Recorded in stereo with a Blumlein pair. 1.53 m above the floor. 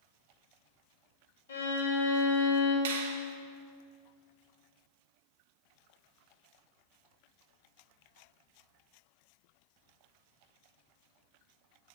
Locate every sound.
1.5 s a violin: 60° left, 2 m
2.9 s a finger snap: 55° right, 1.2 m